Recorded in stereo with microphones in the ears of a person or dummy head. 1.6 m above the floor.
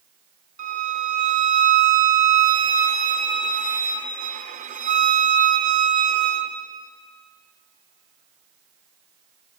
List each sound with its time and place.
0.6 s a violin: 45° right (ahead or behind), 1.4 m